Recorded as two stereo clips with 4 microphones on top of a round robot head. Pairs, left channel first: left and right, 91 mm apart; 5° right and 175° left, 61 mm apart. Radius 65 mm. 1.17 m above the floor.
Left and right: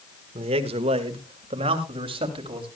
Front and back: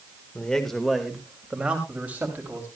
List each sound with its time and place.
0.3 s a man speaking: 80° right, 1.5 m; by 2.7 s 115° right, 3 m